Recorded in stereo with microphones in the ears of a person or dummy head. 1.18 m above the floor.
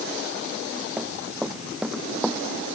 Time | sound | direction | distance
1.0 | running footsteps | 5° right (ahead or behind) | ?